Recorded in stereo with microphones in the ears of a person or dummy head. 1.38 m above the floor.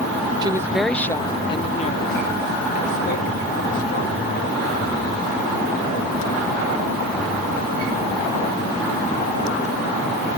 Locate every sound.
0.4 s a woman speaking: 30° right (ahead or behind); by 5.1 s 55° left (ahead or behind)